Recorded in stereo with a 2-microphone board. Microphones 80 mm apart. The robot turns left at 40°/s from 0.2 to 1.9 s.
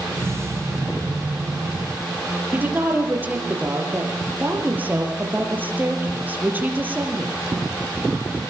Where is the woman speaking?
20° right (ahead or behind), 4.5 m.